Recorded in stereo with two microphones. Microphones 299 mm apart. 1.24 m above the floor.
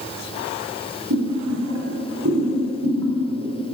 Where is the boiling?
70° right (ahead or behind), 2.5 m.